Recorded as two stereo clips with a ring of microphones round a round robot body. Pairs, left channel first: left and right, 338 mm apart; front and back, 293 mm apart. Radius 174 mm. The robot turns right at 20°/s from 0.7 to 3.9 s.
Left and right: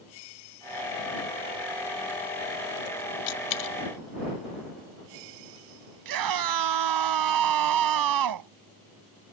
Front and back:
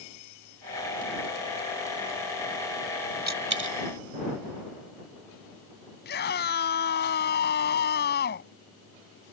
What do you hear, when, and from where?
3.3 s a dropped coin: 120° left; by 3.8 s 130° left
6.0 s a scream: 60° right